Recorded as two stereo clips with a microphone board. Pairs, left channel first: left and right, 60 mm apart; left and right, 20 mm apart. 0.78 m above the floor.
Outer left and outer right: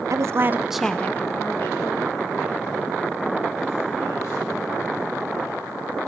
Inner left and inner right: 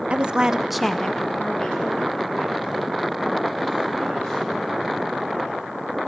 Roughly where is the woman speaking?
Right.